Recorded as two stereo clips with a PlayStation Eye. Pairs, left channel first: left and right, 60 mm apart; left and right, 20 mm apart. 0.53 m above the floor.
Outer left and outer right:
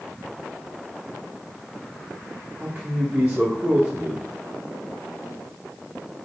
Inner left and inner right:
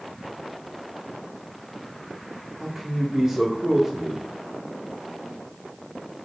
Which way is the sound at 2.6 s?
30° right (ahead or behind).